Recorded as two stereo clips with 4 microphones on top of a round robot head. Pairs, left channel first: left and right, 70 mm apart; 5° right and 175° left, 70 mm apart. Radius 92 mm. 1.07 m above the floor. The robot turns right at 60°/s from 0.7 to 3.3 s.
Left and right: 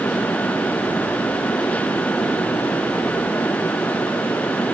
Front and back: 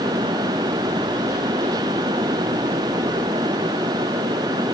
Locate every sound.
Only background noise.